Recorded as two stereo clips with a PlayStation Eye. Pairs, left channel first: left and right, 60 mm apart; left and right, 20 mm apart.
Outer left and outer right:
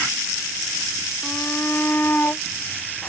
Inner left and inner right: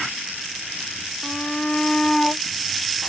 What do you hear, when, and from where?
1.2 s a shout: 35° left (ahead or behind)